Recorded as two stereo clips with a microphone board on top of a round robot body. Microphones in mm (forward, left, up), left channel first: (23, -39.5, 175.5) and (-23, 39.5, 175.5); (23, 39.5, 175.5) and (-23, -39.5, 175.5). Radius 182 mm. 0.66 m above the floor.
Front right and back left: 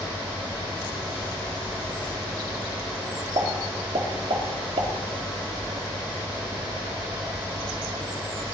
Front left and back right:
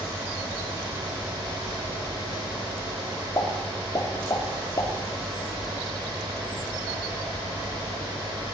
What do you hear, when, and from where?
3.4 s a pop: 110° left, 2.5 m